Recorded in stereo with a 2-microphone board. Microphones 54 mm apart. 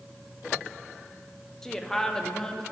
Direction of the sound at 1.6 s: 10° left (ahead or behind).